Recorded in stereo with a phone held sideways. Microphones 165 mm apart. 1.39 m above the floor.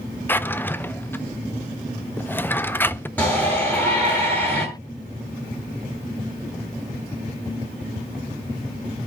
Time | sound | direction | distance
0.3 | a drawer | 10° left (ahead or behind) | 0.5 m
3.2 | a shout | 10° left (ahead or behind) | 9.5 m